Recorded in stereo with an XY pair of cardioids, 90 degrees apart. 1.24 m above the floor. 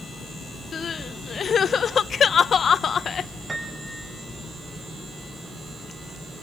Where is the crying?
55° left, 1.0 m.